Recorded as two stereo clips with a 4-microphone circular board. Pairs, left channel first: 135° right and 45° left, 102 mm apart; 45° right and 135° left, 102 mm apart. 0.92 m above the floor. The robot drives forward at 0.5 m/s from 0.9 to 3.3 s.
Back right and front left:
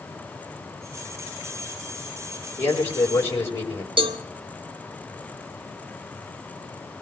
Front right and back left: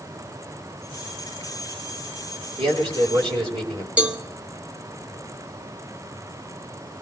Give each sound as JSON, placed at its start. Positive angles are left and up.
{"t": 2.6, "sound": "a man speaking", "azimuth_deg": 160, "distance_m": 4.5}
{"t": 4.0, "sound": "a cowbell", "azimuth_deg": 60, "distance_m": 1.1}